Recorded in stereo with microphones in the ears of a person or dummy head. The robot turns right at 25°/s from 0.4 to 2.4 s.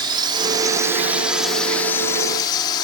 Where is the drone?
25° right (ahead or behind); by 2.8 s 25° left (ahead or behind).